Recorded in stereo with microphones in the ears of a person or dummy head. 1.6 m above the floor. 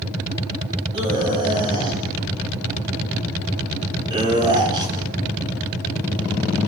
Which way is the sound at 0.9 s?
30° right (ahead or behind).